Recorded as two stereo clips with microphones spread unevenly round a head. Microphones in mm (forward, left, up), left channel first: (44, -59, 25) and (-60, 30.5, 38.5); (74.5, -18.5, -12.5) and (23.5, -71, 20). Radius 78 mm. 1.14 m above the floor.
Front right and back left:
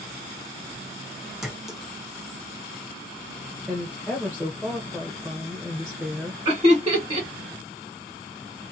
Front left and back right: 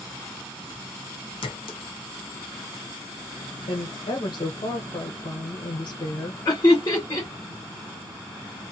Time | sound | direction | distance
1.4 | a clink | 50° left | 0.6 m
3.7 | a woman speaking | 55° left | 0.7 m
6.5 | laughter | 80° left | 1.3 m